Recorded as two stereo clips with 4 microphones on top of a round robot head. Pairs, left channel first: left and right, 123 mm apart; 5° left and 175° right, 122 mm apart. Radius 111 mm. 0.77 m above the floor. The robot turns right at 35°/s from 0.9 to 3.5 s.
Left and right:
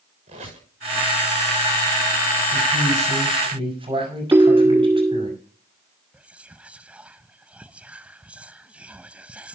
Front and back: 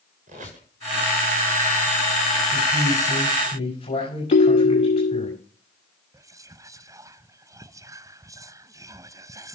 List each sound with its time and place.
0.3 s a squeak: 135° right, 6 m
2.5 s a man speaking: 75° right, 6 m; by 5.3 s 40° right, 6 m
4.3 s a ringtone: 15° right, 0.6 m
6.1 s whispering: 155° right, 0.6 m